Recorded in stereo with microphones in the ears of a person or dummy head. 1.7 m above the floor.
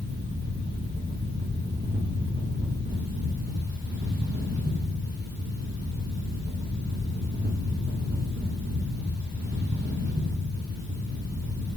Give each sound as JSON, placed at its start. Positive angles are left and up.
{"t": 0.0, "sound": "a fan", "side_deg": -55, "distance_m": 1.4}